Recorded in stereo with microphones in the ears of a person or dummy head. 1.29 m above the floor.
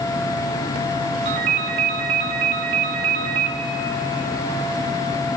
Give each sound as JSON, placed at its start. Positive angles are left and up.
{"t": 1.2, "sound": "a ringtone", "side_deg": -35, "distance_m": 1.0}